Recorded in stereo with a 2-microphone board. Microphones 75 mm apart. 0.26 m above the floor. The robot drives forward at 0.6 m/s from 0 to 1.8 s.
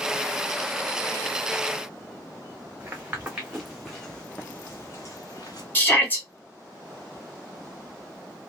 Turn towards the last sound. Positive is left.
turn(degrees=25)  # may be behind; listen again after turning